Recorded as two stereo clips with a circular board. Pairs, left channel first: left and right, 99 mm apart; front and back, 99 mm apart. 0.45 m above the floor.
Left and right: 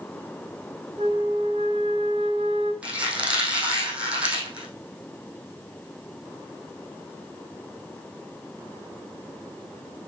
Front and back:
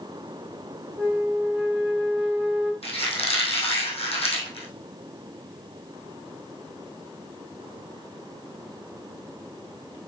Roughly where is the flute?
Right.